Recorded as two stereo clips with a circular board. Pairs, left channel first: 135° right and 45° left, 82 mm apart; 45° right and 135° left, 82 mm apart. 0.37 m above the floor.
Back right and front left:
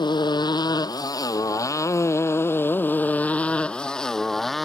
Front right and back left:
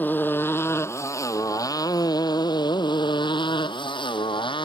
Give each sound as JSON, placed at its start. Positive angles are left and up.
{"t": 0.0, "sound": "a motorcycle", "azimuth_deg": -110}